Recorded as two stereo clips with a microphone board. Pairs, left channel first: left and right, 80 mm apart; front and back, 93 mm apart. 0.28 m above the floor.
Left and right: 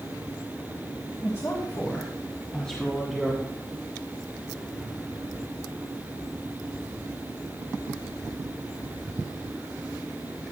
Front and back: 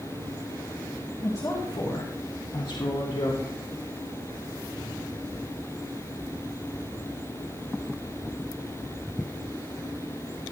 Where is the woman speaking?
50° left, 2.0 m; by 3.4 s straight ahead, 3 m.